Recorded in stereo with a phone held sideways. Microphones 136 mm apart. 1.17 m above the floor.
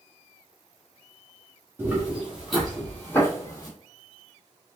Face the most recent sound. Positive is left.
turn(degrees=30)  # may be behind; listen again after turning